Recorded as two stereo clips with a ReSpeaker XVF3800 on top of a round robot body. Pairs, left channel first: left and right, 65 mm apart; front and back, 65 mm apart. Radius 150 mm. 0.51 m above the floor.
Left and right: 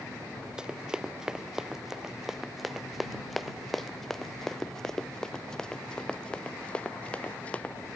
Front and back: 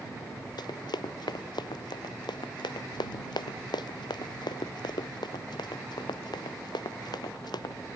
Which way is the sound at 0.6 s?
10° right.